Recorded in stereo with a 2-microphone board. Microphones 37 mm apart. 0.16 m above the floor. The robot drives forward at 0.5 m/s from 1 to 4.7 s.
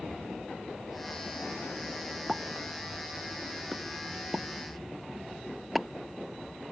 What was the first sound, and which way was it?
A pop, 10° right (ahead or behind).